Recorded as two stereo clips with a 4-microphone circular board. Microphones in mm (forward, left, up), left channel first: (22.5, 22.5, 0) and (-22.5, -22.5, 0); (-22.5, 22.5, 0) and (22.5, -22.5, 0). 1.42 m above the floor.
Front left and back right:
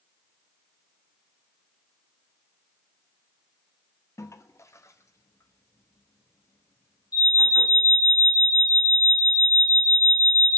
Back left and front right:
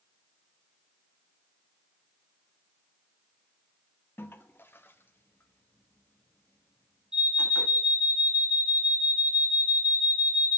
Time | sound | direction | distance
4.2 | a toilet flushing | 80° left | 0.5 m
7.1 | an alarm | 35° left | 4 m